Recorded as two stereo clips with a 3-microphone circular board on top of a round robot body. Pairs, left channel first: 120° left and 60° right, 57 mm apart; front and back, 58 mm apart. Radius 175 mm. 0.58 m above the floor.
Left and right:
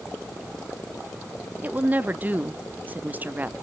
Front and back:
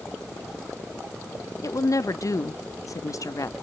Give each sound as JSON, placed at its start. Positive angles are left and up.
{"t": 1.6, "sound": "a woman speaking", "azimuth_deg": -5, "distance_m": 1.1}